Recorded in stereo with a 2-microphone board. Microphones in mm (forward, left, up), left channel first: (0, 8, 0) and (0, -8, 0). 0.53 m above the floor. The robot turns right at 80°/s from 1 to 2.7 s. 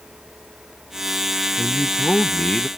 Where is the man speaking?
50° left; by 2.7 s 140° left.